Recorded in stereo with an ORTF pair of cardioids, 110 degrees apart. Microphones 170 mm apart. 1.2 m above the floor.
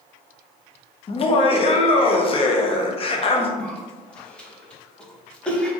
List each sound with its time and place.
1.1 s laughter: 35° left, 0.8 m
3.6 s a cough: 5° left, 1.0 m